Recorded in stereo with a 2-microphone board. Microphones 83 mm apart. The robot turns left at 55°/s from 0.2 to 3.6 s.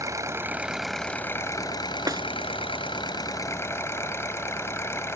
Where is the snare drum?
40° right (ahead or behind); by 2.2 s 50° right (ahead or behind).